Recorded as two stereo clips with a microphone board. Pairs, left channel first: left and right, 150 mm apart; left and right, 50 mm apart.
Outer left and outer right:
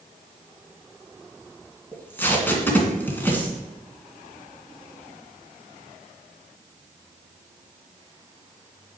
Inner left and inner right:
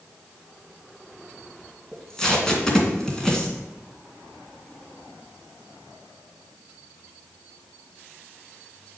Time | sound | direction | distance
1.9 | tape being pulled | 15° left (ahead or behind) | 2 m